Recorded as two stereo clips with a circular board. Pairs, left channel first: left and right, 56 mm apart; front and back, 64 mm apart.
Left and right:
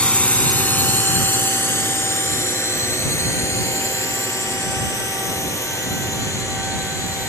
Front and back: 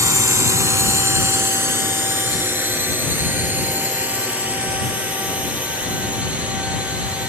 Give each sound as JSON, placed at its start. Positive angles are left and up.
{"t": 0.0, "sound": "a drone", "azimuth_deg": 155}